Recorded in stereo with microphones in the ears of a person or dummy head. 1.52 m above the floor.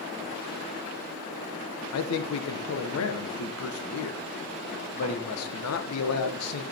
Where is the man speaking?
85° left, 1.2 m.